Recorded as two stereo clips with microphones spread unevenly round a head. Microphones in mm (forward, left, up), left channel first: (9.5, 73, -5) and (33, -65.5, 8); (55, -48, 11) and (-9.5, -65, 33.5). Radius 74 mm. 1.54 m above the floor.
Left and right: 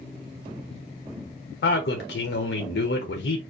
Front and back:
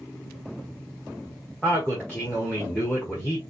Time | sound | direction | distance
1.6 | a man speaking | 105° left | 0.9 m